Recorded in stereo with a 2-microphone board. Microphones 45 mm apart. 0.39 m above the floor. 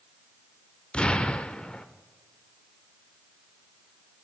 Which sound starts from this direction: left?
An explosion, at 0.9 s.